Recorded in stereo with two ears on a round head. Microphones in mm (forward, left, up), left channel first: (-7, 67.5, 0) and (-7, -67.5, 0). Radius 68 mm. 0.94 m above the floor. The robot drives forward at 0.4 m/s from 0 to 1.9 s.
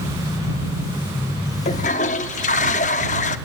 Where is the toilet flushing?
45° left (ahead or behind), 0.8 m; by 3.4 s 50° left (ahead or behind), 0.8 m.